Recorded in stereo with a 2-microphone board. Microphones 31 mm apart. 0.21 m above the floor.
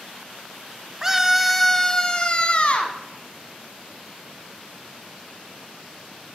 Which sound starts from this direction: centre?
A scream, at 1.0 s.